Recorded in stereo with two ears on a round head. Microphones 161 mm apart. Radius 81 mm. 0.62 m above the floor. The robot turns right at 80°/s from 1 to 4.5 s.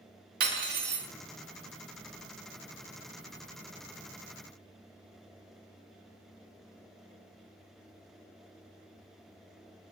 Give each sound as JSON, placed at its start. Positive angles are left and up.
{"t": 0.4, "sound": "cutlery clinking", "side_deg": -55, "distance_m": 0.6}